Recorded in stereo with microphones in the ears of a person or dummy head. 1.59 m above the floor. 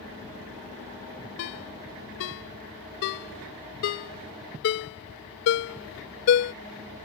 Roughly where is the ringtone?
Left.